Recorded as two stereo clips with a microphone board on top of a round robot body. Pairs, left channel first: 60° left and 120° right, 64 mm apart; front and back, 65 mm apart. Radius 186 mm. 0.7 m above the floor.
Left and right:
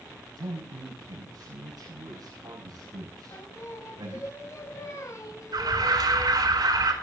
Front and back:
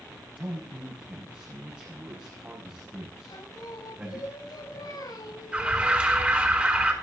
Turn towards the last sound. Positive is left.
turn(degrees=-110)